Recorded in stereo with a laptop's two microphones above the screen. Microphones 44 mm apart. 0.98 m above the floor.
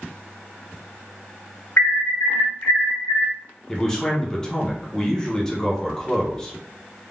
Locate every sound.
1.8 s an alarm: 55° left (ahead or behind), 0.9 m
3.7 s a man speaking: 15° left (ahead or behind), 0.6 m